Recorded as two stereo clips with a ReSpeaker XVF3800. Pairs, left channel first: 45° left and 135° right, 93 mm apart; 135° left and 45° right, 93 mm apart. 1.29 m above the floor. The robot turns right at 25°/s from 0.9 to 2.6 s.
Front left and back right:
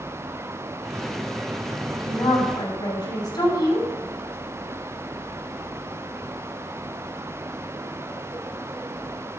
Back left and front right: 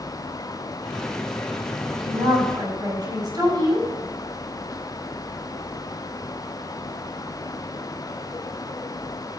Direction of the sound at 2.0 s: 10° right.